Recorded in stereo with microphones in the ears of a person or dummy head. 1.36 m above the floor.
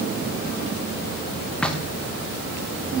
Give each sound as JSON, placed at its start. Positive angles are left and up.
{"t": 1.6, "sound": "knocking", "side_deg": 5, "distance_m": 0.9}